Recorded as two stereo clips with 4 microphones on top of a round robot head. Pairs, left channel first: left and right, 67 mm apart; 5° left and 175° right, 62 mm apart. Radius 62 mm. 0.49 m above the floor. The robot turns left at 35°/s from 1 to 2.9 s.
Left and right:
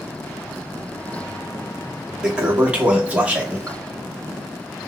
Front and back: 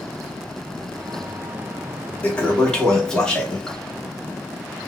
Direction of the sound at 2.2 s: 30° right.